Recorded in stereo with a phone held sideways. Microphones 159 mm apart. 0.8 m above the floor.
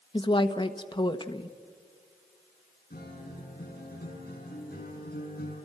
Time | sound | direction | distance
0.1 | a woman speaking | 30° left (ahead or behind) | 1.1 m
2.9 | a guitar | 75° left (ahead or behind) | 6 m